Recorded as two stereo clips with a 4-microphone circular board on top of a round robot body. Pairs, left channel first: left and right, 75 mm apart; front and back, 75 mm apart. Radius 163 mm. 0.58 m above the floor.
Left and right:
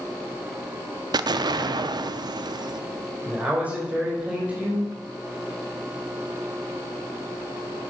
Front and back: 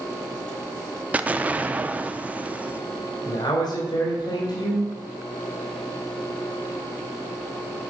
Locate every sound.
1.1 s an explosion: 110° right, 0.5 m
3.2 s a man speaking: 20° right, 3.5 m